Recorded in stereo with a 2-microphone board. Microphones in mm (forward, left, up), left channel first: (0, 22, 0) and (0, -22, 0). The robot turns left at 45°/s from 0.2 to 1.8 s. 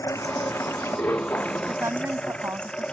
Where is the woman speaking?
80° right; by 2.9 s 75° right (ahead or behind).